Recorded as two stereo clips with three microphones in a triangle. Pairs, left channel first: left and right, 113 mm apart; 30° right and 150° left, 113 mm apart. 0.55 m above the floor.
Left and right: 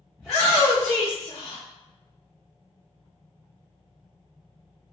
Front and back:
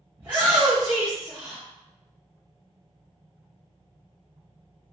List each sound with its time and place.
0.2 s a shout: 175° left, 0.9 m; by 1.6 s 100° left, 0.9 m